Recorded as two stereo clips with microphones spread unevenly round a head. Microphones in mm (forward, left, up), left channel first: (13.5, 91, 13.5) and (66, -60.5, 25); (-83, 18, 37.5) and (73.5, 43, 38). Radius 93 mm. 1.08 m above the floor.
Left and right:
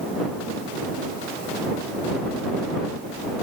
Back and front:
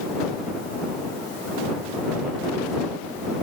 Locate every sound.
Only background noise.